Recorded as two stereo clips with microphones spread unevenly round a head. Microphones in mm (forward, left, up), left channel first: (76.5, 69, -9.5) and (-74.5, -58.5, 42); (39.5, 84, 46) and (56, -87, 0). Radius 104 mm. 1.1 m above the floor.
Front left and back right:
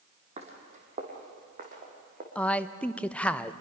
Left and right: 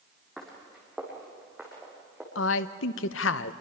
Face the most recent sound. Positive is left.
turn(degrees=120)